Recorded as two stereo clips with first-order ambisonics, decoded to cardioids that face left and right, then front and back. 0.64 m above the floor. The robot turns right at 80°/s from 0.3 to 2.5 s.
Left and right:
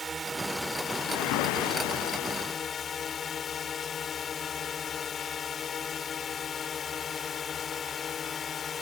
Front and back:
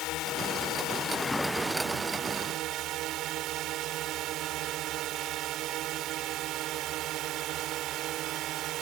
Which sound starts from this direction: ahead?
A drone, at 0.0 s.